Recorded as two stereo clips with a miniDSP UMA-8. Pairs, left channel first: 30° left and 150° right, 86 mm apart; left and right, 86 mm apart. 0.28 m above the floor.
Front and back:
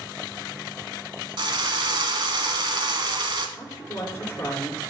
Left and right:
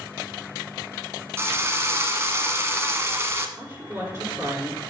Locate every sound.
1.4 s a drill: 145° right, 1.2 m
3.6 s a woman speaking: 20° right, 4.5 m